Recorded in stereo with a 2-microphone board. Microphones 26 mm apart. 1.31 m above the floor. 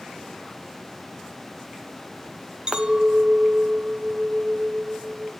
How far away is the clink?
About 0.8 m.